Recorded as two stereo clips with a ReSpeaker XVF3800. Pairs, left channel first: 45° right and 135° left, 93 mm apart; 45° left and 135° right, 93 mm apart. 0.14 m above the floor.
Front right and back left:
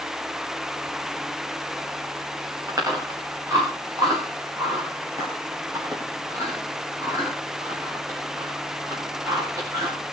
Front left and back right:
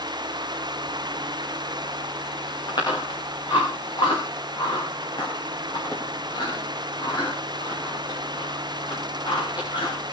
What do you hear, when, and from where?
2.7 s chewing: 80° left, 9 m